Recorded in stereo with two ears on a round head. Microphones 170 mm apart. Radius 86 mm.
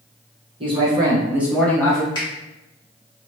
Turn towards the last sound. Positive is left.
turn(degrees=25)  # may be behind; listen again after turning